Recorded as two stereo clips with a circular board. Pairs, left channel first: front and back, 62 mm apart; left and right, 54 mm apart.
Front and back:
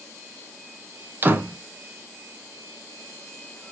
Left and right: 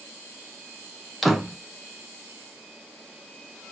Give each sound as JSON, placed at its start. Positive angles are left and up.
{"t": 1.2, "sound": "a door slam", "azimuth_deg": -175, "distance_m": 0.8}